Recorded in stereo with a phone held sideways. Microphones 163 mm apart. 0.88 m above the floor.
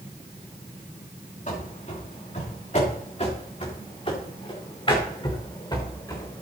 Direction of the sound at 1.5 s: 50° left (ahead or behind).